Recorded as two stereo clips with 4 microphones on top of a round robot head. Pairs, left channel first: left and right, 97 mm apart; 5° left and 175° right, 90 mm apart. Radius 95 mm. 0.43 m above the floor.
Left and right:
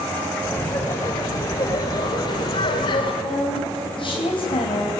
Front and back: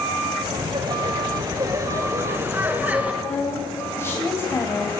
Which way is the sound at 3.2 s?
65° left.